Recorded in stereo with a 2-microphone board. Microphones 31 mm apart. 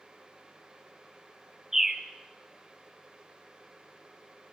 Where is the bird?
15° right (ahead or behind), 1.2 m.